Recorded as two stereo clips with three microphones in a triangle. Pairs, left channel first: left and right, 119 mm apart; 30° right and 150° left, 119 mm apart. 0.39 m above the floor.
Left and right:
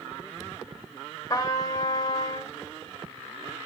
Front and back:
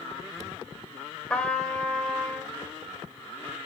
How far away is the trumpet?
About 1.3 m.